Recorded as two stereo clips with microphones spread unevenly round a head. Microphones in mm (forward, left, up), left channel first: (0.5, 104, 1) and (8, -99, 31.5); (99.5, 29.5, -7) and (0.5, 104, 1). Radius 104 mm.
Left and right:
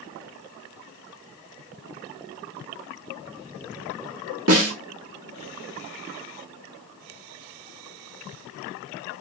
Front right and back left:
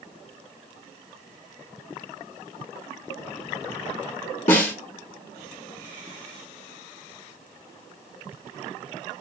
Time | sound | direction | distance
4.5 | a snare drum | 75° right | 0.8 m